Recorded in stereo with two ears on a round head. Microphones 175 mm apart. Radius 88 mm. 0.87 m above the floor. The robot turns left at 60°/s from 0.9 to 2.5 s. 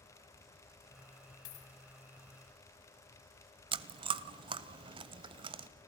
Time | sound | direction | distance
1.4 | a dropped coin | 85° left | 3 m
3.7 | chewing | 25° right (ahead or behind) | 0.8 m